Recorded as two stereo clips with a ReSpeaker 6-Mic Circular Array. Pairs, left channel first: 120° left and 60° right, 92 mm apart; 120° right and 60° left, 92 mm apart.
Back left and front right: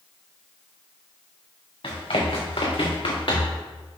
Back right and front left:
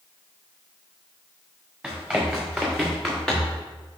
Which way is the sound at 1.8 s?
145° left.